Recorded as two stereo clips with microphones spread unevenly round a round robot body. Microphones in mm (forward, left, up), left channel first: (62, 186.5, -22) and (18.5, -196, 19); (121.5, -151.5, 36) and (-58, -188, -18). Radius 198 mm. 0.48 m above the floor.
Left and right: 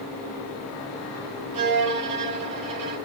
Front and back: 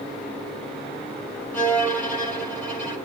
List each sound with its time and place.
1.5 s a violin: 70° right, 4 m